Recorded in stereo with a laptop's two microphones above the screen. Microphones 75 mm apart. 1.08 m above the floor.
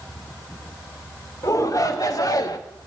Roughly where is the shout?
Left.